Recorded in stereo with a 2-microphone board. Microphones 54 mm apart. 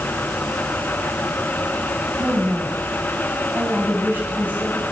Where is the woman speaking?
35° right (ahead or behind), 3 m.